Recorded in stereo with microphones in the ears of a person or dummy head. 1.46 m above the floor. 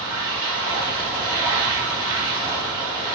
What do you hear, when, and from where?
0.0 s a machine running: 15° right (ahead or behind), 1.3 m